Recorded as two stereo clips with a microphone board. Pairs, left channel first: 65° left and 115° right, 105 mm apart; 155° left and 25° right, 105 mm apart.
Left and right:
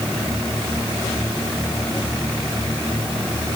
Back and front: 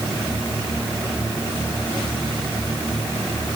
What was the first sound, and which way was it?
Only background noise.